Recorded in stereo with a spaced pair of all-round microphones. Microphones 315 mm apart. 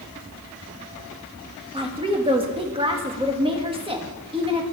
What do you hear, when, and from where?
1.7 s a woman speaking: 15° right (ahead or behind), 1.6 m